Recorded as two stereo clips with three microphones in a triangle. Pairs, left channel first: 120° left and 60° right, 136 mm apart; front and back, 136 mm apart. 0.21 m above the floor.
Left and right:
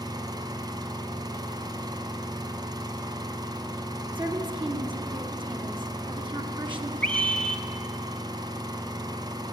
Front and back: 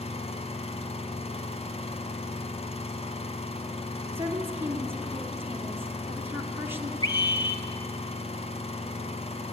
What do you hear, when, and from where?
0.0 s an engine running: 10° right, 1.6 m
4.2 s a woman speaking: 110° right, 2.5 m
7.0 s a scream: 40° left, 2 m